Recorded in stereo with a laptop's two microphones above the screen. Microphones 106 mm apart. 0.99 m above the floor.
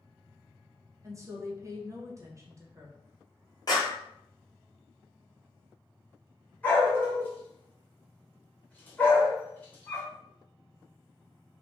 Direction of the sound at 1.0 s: 30° right (ahead or behind).